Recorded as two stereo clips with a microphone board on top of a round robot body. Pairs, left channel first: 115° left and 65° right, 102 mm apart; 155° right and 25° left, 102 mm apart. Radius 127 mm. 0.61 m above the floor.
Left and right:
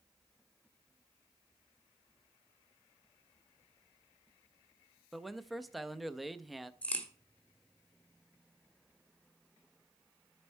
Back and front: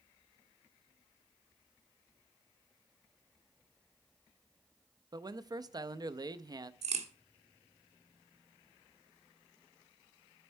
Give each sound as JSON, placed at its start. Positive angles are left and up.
{"t": 5.1, "sound": "a man speaking", "azimuth_deg": 20, "distance_m": 0.6}
{"t": 6.8, "sound": "a crack", "azimuth_deg": 35, "distance_m": 1.5}